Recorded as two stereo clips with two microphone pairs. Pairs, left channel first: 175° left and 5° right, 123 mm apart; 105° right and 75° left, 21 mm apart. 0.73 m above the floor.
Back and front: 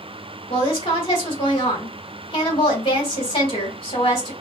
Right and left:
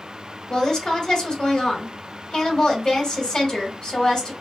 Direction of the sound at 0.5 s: 145° right.